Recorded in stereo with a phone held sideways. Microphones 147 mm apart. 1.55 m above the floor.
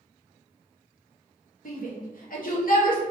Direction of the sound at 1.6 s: 70° left (ahead or behind).